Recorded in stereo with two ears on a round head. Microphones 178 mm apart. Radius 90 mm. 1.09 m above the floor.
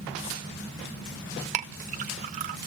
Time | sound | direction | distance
1.5 | a clink | 40° right (ahead or behind) | 0.6 m